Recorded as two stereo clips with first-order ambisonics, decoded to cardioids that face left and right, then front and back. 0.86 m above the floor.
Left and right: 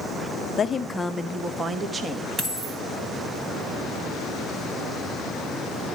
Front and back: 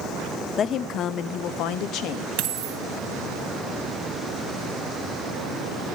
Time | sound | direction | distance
0.6 | a woman speaking | 40° left | 0.7 m
2.4 | a dropped coin | 160° right | 2 m